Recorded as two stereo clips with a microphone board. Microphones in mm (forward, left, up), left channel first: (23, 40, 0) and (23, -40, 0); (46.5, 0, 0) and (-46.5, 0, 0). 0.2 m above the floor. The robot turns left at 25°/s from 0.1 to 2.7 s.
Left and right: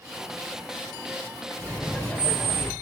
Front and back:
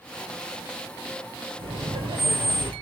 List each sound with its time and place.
1.6 s laughter: 170° left, 3.5 m; by 2.7 s 145° left, 3.5 m